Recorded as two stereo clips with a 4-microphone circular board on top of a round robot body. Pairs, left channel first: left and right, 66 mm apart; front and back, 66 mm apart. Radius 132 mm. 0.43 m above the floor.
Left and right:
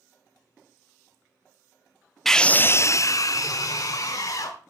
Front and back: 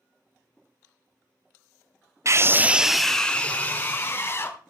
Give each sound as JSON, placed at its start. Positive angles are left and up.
{"t": 2.2, "sound": "a scream", "azimuth_deg": 175, "distance_m": 0.9}